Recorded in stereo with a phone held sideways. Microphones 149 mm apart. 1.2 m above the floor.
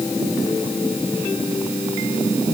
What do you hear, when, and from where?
Only background noise.